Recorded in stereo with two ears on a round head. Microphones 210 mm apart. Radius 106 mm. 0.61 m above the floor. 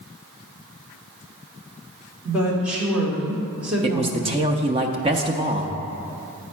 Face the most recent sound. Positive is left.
turn(degrees=-25)  # may be behind; listen again after turning